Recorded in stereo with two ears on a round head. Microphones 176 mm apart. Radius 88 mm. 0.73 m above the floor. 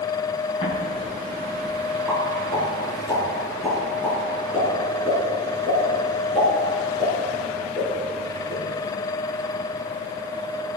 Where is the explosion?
30° left (ahead or behind), 5 m.